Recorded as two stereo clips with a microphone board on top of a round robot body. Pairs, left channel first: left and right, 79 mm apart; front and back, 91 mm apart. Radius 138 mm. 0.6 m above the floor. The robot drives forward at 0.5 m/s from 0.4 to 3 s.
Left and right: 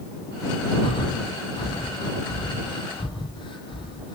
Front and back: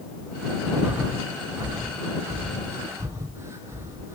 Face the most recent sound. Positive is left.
turn(degrees=115)